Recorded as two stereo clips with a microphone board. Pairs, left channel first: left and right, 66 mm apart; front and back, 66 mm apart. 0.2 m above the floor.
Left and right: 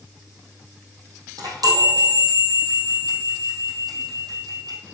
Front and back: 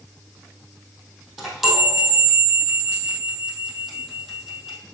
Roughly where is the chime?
Right.